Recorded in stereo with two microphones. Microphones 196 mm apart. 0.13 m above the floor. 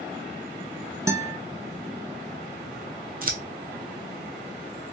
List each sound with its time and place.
1.1 s a guitar: 15° right (ahead or behind), 0.6 m
3.2 s scissors: 45° right (ahead or behind), 0.6 m